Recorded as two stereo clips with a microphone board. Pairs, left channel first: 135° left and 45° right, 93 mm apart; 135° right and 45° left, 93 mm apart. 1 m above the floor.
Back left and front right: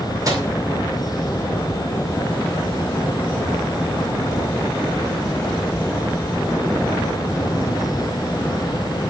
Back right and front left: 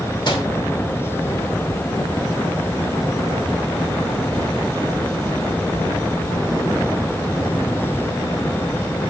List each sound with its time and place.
0.2 s a microwave: 100° right, 2 m